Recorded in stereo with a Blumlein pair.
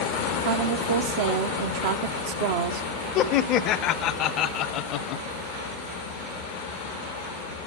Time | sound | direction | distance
0.4 | a woman speaking | 55° right | 0.7 m
3.1 | laughter | 35° left | 0.6 m